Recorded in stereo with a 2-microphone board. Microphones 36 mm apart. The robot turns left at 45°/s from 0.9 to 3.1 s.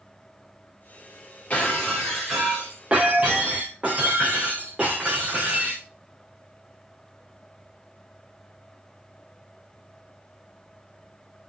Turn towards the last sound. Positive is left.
turn(degrees=-35)